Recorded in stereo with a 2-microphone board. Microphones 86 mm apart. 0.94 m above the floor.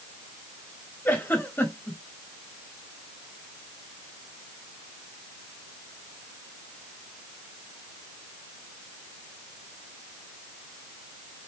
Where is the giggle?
20° left (ahead or behind), 2 m.